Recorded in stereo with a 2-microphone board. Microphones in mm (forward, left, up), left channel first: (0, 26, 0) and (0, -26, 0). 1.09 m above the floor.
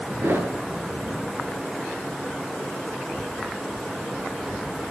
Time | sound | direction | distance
0.2 | a thud | 50° right (ahead or behind) | 6.5 m